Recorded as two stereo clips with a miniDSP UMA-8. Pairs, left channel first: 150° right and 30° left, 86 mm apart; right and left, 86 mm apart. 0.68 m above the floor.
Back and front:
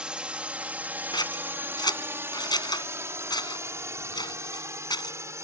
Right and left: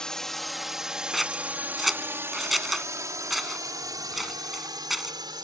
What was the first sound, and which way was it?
A drone, 25° right.